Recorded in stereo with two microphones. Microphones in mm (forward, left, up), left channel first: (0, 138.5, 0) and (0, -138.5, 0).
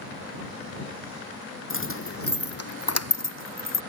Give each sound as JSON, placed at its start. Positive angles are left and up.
{"t": 1.7, "sound": "keys jangling", "side_deg": 45}